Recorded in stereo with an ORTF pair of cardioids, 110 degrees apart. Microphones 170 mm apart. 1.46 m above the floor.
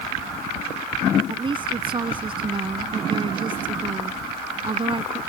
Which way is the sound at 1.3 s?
30° right.